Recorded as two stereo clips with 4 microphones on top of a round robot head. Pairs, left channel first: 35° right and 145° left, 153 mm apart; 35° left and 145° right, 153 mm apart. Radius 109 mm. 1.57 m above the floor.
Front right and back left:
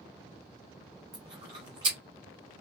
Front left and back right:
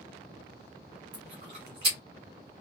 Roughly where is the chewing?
Behind.